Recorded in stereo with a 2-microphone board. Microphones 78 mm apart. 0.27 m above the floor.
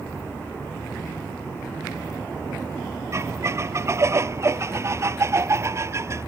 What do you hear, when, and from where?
3.1 s a squeak: 35° right (ahead or behind)